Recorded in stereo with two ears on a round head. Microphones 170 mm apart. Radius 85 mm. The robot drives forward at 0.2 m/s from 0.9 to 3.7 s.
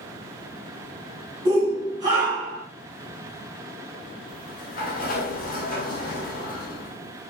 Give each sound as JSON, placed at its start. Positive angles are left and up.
{"t": 1.4, "sound": "a shout", "side_deg": -20, "distance_m": 1.1}
{"t": 4.3, "sound": "a sliding door", "side_deg": 50, "distance_m": 0.6}